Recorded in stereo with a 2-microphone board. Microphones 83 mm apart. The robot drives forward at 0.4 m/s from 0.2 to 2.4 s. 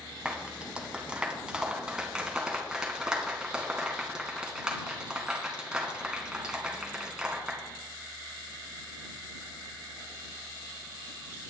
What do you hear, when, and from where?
0.2 s a clap: 15° right (ahead or behind), 2 m; by 7.6 s 10° right (ahead or behind), 3 m